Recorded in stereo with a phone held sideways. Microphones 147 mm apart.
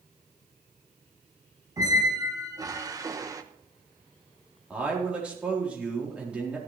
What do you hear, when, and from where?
1.8 s a squeak: 25° right (ahead or behind), 0.9 m
4.7 s a man speaking: 10° right (ahead or behind), 4 m